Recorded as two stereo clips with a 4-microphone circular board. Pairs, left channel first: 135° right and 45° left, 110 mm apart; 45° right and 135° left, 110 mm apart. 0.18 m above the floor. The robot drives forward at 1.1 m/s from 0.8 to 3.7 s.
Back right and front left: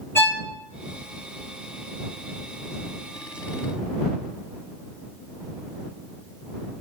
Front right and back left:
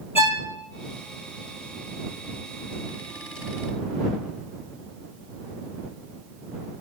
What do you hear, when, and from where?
0.1 s a violin: 70° right, 1.9 m